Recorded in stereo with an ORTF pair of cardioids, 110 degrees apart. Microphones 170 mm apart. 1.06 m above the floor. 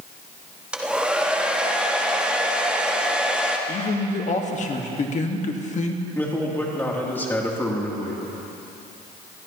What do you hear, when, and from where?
0.7 s a hair dryer: 5° right, 1.2 m
3.7 s a man speaking: 45° left, 1.5 m
6.2 s a man speaking: 15° left, 2.5 m